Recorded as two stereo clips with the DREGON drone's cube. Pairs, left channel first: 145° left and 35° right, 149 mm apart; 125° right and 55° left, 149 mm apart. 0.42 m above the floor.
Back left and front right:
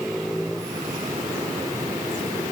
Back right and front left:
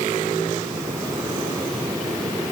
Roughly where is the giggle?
No giggle in this recording.